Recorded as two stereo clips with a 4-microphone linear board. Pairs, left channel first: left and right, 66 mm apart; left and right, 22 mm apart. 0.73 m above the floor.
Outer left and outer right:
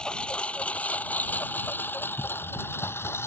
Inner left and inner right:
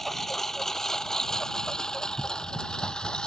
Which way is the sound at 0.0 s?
15° left (ahead or behind).